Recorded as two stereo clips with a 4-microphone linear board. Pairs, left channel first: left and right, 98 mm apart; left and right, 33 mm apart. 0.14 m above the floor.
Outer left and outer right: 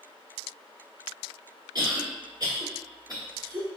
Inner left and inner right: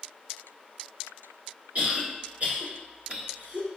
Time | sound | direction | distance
1.8 | a cough | 45° right (ahead or behind) | 1.6 m